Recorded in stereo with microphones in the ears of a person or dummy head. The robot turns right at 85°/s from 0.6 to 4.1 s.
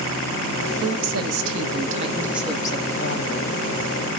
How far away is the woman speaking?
About 1.0 m.